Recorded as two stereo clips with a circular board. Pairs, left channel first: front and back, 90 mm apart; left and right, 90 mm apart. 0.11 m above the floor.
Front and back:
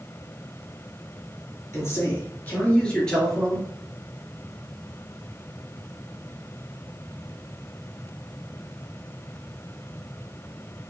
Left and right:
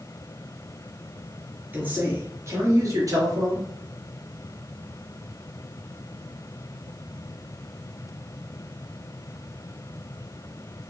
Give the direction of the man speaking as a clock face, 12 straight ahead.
1 o'clock.